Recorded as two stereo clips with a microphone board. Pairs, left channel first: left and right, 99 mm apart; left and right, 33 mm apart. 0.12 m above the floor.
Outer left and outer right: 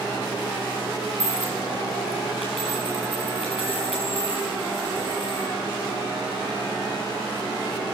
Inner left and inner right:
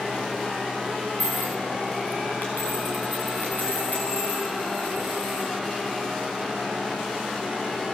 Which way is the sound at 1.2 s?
80° left.